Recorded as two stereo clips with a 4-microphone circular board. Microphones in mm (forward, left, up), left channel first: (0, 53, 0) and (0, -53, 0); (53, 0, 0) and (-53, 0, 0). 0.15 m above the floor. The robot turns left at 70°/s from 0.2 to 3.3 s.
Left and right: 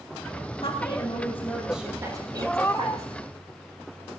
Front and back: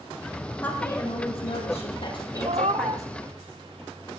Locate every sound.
0.6 s a woman speaking: 70° left, 6 m; by 3.1 s 100° right, 6 m
2.4 s a cat meowing: 175° left, 0.9 m; by 3.0 s 135° left, 0.9 m